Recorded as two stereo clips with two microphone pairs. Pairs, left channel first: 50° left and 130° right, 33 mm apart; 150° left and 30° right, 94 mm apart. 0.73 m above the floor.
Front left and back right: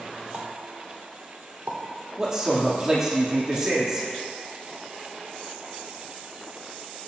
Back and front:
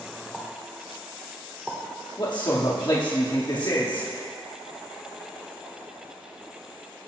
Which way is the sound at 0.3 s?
115° right.